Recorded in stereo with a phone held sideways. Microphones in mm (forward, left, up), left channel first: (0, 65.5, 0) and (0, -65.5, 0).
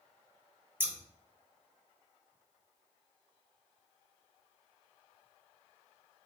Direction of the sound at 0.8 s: 15° right (ahead or behind).